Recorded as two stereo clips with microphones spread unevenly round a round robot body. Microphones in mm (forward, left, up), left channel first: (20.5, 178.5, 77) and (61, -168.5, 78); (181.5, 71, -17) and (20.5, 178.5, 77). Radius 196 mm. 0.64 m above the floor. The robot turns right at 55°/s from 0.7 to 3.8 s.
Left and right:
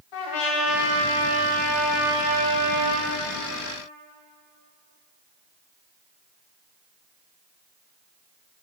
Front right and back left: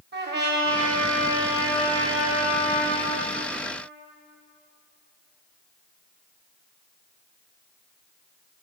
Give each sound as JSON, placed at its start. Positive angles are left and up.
{"t": 0.1, "sound": "a trumpet", "azimuth_deg": 115, "distance_m": 1.3}